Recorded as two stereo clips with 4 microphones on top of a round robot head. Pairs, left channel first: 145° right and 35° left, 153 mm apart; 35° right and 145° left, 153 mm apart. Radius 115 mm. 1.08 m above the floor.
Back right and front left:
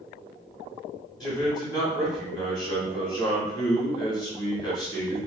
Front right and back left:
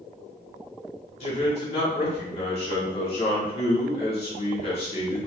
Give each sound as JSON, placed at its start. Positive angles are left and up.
{"t": 1.2, "sound": "a man speaking", "azimuth_deg": -85, "distance_m": 1.6}